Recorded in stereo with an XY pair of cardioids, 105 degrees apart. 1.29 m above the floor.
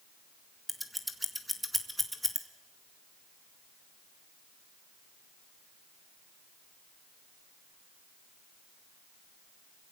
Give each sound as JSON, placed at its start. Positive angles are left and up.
{"t": 0.7, "sound": "scissors", "azimuth_deg": 0, "distance_m": 2.0}